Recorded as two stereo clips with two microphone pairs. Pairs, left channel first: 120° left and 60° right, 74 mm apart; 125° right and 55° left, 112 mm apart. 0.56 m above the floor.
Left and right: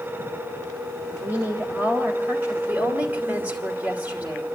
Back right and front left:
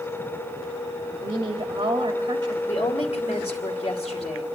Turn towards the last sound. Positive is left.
turn(degrees=-120)